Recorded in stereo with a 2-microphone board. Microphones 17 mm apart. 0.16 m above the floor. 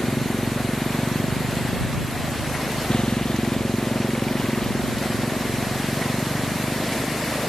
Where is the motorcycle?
70° left (ahead or behind); by 7.5 s 35° left (ahead or behind).